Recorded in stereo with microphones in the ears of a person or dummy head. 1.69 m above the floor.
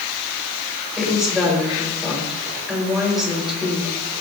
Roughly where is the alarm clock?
I don't hear an alarm clock.